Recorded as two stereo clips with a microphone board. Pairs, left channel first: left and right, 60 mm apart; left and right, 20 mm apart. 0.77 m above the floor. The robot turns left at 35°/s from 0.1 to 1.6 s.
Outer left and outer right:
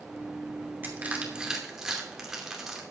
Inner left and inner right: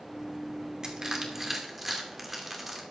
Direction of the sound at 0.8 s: 30° right (ahead or behind).